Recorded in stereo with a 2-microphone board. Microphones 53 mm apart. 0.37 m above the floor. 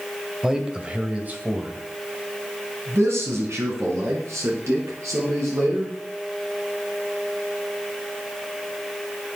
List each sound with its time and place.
0.4 s a man speaking: 10° right (ahead or behind), 2 m; by 5.9 s 70° right (ahead or behind), 7 m